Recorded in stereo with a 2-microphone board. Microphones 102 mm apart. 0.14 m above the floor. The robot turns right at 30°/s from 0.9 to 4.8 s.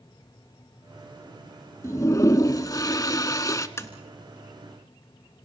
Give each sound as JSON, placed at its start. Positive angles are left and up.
{"t": 1.8, "sound": "a toilet flushing", "azimuth_deg": 60, "distance_m": 0.8}
{"t": 3.8, "sound": "tapping", "side_deg": 25, "distance_m": 1.3}